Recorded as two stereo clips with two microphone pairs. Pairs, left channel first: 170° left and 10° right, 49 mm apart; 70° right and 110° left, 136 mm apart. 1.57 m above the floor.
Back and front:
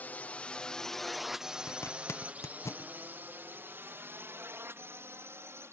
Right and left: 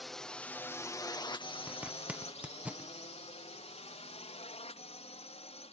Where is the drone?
160° right; by 5.7 s 35° right.